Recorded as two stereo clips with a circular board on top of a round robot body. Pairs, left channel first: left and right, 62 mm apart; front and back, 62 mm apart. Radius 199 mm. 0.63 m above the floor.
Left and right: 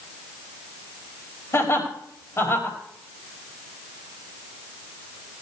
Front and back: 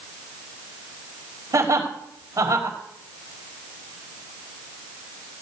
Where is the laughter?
140° left, 5 m.